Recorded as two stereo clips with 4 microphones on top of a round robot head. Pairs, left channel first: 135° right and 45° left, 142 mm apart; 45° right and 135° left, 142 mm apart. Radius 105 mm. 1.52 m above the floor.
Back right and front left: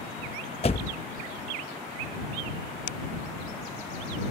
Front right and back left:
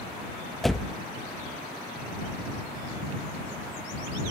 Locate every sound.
0.6 s a door slam: 130° right